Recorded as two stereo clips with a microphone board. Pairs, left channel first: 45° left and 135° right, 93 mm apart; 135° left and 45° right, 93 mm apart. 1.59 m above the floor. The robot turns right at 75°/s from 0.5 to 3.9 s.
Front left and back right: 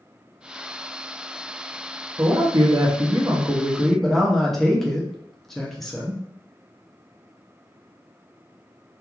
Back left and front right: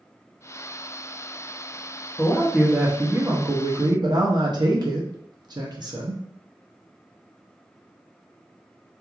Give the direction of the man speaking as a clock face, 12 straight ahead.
6 o'clock.